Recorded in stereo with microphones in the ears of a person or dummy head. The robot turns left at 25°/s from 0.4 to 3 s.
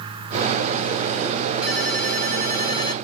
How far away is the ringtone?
About 1.2 m.